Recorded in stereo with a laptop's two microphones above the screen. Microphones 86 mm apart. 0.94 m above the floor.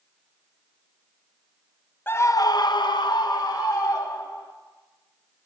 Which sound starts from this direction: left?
A scream, at 2.1 s.